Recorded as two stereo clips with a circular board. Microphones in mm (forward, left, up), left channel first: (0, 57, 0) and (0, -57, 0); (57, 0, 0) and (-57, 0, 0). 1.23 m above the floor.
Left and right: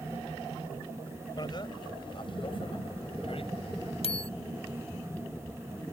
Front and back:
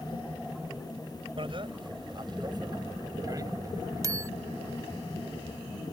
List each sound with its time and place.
1.4 s a bicycle bell: 140° left; by 4.3 s 120° left